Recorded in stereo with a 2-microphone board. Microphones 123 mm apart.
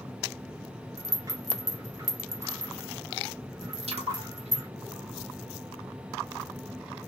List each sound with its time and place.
1.0 s a rattle: 30° right (ahead or behind), 0.9 m
3.9 s a splash: 60° right (ahead or behind), 1.1 m